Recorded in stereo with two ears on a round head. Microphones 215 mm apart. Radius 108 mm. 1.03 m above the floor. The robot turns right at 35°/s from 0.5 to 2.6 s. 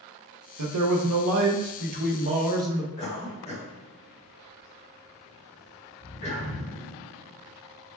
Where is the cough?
30° left (ahead or behind), 1.4 m.